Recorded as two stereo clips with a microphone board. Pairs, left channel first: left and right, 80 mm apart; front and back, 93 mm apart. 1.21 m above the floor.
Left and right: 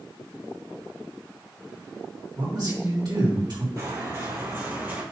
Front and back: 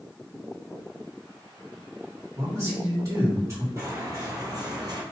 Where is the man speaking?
125° right, 2.5 m.